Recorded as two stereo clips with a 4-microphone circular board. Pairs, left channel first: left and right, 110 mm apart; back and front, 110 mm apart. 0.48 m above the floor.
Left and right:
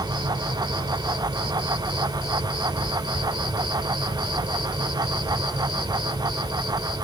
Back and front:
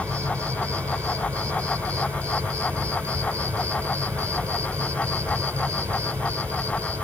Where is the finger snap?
I don't hear a finger snap.